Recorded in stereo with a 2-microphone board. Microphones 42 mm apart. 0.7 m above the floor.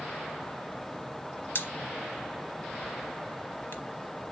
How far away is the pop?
About 0.9 m.